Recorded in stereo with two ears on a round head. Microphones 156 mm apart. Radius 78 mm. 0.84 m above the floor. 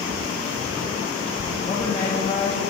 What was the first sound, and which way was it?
A woman speaking, 25° left (ahead or behind).